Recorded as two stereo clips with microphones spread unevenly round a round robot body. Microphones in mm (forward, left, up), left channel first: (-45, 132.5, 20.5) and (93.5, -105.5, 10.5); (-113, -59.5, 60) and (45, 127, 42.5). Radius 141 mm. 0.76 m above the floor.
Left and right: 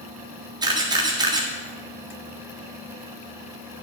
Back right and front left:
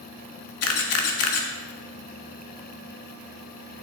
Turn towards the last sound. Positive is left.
turn(degrees=-130)